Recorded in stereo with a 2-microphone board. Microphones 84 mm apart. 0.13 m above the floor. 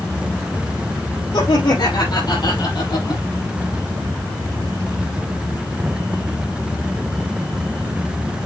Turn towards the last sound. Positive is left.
turn(degrees=60)  # may be behind; listen again after turning